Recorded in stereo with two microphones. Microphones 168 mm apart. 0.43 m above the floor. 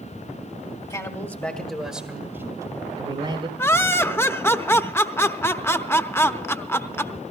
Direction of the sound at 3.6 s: 15° left (ahead or behind).